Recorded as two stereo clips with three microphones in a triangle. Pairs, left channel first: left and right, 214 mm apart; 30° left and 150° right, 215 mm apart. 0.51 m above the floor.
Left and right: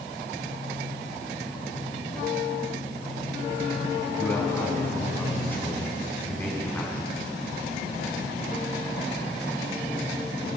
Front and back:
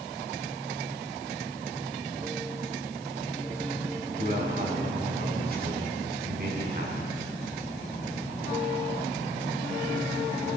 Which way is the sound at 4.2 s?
170° left.